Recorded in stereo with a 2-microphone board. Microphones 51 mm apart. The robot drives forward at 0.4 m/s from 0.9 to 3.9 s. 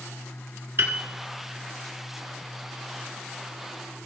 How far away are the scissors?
No scissors in this recording.